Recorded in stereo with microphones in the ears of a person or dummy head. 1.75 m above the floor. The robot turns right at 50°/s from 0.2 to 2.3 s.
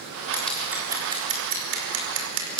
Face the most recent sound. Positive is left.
turn(degrees=-80)